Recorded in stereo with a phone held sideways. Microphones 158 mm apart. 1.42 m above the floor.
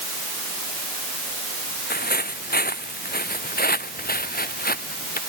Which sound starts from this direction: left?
Footsteps, at 1.9 s.